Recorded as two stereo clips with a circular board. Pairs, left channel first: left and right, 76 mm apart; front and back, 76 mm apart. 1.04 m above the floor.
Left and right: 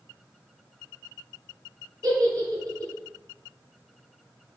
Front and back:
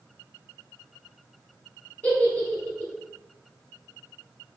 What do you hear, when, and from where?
2.0 s a giggle: 65° right, 1.2 m